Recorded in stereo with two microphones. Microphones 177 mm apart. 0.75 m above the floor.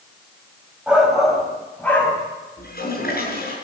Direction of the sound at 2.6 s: 60° left (ahead or behind).